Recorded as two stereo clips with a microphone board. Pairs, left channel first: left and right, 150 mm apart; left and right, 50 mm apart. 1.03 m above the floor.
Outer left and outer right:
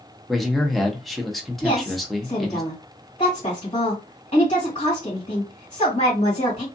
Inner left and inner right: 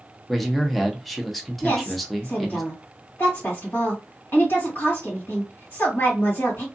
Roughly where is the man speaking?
Centre.